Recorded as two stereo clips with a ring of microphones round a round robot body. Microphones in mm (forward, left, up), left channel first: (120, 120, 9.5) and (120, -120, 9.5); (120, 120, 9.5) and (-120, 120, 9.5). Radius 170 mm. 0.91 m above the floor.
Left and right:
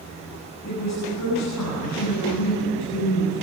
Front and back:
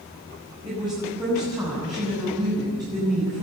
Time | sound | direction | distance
0.7 | a woman speaking | 105° left | 8 m